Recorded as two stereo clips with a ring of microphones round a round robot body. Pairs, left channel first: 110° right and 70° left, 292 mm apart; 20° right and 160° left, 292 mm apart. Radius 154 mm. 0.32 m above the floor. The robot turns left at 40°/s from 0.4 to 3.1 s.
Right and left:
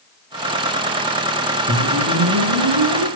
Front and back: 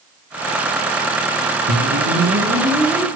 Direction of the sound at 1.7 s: 120° left.